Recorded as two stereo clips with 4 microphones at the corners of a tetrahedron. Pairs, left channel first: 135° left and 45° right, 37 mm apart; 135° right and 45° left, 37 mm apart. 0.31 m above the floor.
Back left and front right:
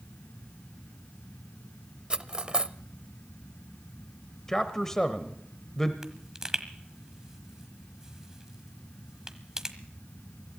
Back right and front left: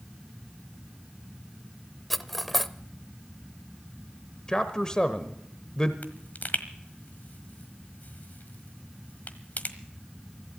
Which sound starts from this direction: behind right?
A pop, at 6.0 s.